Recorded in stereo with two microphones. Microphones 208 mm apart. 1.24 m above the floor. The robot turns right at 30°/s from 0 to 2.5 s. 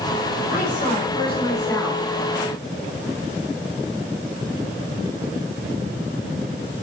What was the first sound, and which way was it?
A woman speaking, 130° left.